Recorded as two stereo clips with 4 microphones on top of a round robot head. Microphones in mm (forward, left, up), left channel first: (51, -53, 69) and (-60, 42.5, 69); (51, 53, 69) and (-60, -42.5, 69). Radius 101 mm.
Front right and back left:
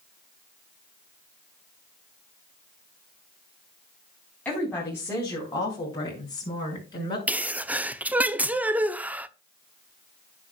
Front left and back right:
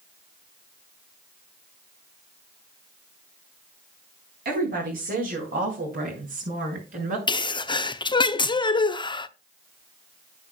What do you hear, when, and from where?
4.5 s a woman speaking: 120° right, 4.5 m; by 7.2 s 105° right, 6.5 m
7.3 s a sneeze: 65° left, 1.0 m